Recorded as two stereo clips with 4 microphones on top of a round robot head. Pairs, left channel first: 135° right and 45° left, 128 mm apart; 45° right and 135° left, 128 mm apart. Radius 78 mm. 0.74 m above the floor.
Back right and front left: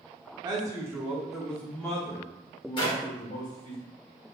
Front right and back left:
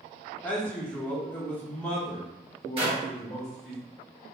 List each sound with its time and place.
0.4 s a man speaking: 25° left, 1.0 m; by 3.8 s 130° right, 1.6 m
2.8 s a clap: 175° left, 1.5 m